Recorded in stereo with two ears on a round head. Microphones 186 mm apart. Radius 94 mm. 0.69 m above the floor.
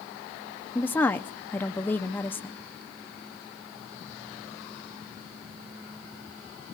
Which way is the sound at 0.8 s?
10° left (ahead or behind).